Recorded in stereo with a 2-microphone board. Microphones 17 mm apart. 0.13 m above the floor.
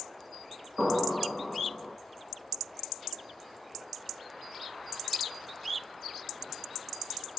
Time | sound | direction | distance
0.8 | an explosion | 10° left (ahead or behind) | 1.0 m